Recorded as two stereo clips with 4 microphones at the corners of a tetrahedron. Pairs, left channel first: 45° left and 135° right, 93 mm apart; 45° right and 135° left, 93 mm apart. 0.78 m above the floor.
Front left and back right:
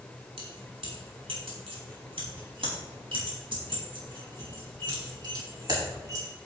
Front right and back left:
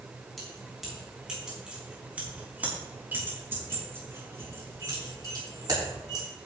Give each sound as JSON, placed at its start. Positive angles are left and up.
{"t": 0.4, "sound": "keys jangling", "azimuth_deg": -135, "distance_m": 5.0}